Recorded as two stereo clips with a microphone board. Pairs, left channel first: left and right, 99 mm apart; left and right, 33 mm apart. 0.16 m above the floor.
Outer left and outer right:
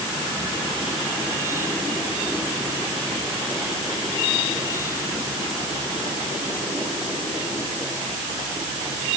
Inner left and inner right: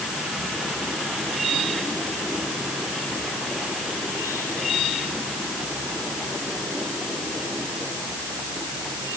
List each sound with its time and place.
Only background noise.